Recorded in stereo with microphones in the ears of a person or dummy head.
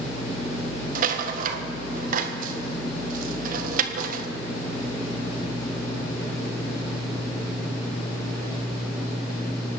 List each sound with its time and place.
0.9 s a rattle: 55° right (ahead or behind), 1.6 m